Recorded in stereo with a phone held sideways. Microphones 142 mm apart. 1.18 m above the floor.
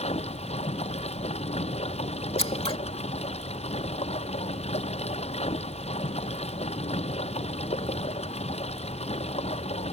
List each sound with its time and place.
0.0 s running water: 50° left (ahead or behind)
2.4 s scissors: 45° left (ahead or behind)